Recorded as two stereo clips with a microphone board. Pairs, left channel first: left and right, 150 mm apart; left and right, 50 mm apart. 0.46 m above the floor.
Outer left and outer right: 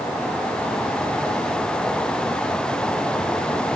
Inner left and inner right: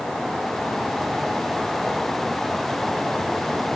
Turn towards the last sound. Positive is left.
No sound to turn to.